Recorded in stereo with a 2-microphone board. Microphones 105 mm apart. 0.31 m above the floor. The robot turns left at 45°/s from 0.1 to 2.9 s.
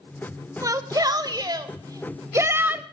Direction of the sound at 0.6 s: 55° right.